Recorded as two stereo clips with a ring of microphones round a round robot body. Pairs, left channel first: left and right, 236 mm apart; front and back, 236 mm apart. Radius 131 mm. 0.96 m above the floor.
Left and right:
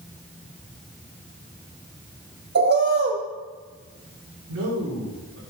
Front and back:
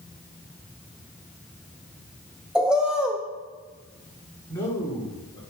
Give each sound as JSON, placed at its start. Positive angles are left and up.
{"t": 2.5, "sound": "a bird", "azimuth_deg": -95, "distance_m": 0.8}
{"t": 4.5, "sound": "a man speaking", "azimuth_deg": -80, "distance_m": 2.5}